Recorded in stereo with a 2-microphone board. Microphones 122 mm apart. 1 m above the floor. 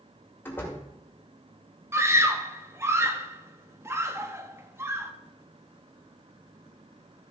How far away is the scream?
About 1.2 m.